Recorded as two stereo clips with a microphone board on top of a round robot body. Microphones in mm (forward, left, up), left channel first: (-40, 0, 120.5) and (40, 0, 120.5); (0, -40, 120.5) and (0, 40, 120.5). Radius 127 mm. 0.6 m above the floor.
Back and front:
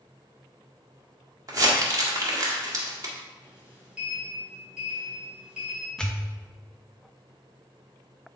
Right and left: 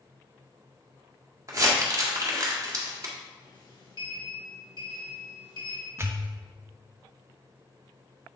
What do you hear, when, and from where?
1.5 s crumpling: 40° left, 1.9 m
3.4 s a sliding door: 75° right, 2.5 m
6.0 s a pop: 105° left, 1.2 m